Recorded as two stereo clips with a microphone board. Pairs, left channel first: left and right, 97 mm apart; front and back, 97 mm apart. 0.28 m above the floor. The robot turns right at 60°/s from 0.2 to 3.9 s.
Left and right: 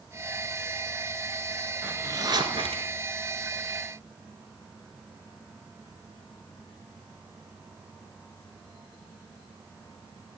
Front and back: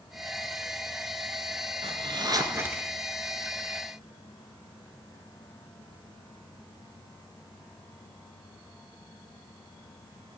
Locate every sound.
1.8 s a zipper: 165° right, 1.7 m; by 2.9 s 100° right, 1.7 m